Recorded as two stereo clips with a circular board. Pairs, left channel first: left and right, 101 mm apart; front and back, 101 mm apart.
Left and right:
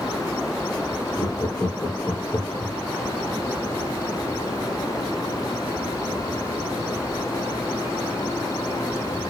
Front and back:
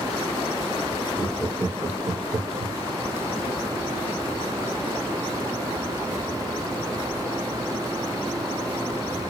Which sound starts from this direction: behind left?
Laughter, at 1.2 s.